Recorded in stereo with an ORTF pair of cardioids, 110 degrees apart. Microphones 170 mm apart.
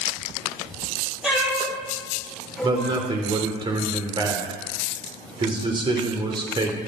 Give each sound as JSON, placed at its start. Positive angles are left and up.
{"t": 1.2, "sound": "a cat meowing", "azimuth_deg": -5, "distance_m": 7.0}
{"t": 2.6, "sound": "a man speaking", "azimuth_deg": -25, "distance_m": 2.5}